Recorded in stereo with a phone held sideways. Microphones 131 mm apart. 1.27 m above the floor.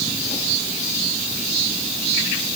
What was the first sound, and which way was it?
Only background noise.